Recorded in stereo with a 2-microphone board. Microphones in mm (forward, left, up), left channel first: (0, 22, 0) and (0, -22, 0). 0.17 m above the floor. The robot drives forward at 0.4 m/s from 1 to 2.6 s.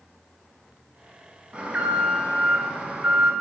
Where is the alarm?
25° right (ahead or behind), 0.9 m; by 3.3 s 20° right (ahead or behind), 1.1 m.